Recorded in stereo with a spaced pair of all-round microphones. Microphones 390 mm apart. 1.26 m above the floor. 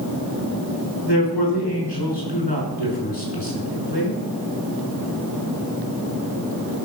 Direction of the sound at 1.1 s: 85° left.